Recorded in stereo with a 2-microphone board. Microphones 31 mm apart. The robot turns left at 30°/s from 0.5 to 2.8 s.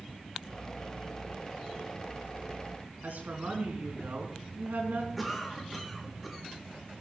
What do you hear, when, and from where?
3.0 s a woman speaking: 75° right (ahead or behind), 5 m
5.2 s a cough: centre (ahead or behind), 4.5 m